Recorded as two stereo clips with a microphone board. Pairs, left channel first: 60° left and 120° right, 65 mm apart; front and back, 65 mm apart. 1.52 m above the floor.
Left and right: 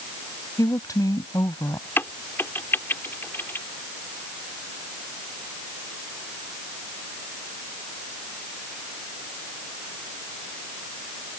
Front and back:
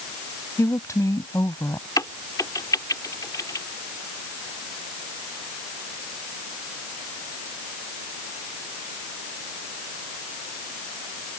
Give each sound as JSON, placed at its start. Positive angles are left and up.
{"t": 0.6, "sound": "a woman speaking", "azimuth_deg": 35}
{"t": 2.0, "sound": "a crack", "azimuth_deg": 10}